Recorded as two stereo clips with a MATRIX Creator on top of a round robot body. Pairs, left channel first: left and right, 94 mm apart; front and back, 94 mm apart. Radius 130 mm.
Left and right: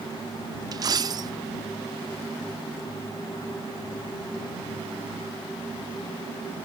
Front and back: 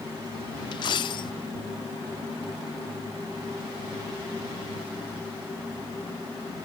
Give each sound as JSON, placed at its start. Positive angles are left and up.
{"t": 0.7, "sound": "a dropped coin", "azimuth_deg": -40}